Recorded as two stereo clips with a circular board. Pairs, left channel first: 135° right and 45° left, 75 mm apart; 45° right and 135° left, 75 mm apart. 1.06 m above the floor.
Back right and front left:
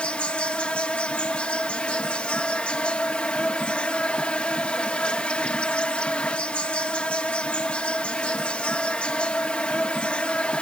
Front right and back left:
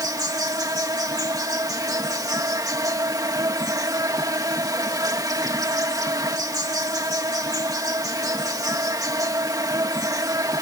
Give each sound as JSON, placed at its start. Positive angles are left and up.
{"t": 0.0, "sound": "an insect", "azimuth_deg": 155}